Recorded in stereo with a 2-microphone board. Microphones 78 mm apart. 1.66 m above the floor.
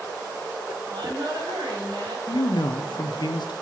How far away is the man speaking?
About 0.8 m.